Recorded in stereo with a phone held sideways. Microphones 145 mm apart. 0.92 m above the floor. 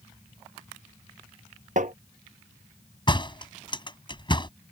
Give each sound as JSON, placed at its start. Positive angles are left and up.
{"t": 1.8, "sound": "tapping", "side_deg": -60}
{"t": 3.1, "sound": "a door slam", "side_deg": 35}